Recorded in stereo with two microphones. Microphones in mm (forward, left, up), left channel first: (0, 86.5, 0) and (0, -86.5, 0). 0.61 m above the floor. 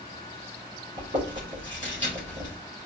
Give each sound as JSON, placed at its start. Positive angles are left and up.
{"t": 1.0, "sound": "chewing", "side_deg": -45, "distance_m": 2.5}